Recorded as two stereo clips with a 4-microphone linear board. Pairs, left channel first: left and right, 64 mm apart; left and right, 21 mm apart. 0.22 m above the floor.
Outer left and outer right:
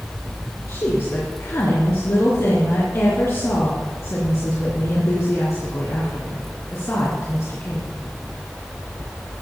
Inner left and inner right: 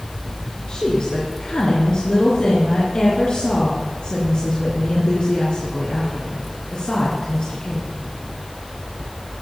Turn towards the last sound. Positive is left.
turn(degrees=50)  # may be behind; listen again after turning